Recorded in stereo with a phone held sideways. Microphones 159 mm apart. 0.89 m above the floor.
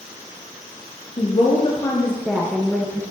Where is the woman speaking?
40° left (ahead or behind), 1.0 m; by 3.0 s 10° right (ahead or behind), 1.4 m.